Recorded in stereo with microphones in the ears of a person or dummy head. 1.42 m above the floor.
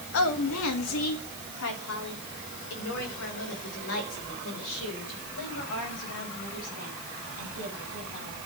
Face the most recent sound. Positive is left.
turn(degrees=65)  # may be behind; listen again after turning